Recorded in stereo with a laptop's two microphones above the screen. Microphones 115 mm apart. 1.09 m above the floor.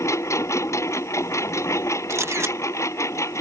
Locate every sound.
0.0 s a lawn mower: 25° left (ahead or behind)
2.1 s a camera shutter: 25° right (ahead or behind)